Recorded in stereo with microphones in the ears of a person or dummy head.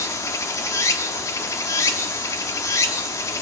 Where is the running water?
15° left (ahead or behind), 0.9 m.